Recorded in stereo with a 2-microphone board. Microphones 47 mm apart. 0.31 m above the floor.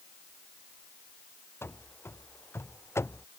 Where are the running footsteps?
60° left (ahead or behind); by 3.3 s 70° left (ahead or behind).